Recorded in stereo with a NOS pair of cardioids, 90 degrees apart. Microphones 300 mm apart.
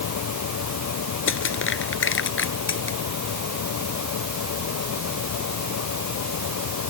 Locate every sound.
0.0 s a fan: 60° left
1.3 s crushing: 40° left